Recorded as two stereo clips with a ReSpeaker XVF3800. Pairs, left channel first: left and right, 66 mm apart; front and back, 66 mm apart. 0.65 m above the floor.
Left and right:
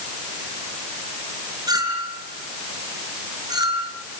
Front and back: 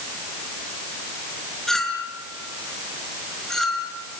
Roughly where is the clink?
Right.